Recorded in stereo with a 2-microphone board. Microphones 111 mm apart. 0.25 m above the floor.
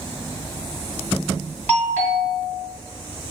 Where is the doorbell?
15° left (ahead or behind), 2.0 m.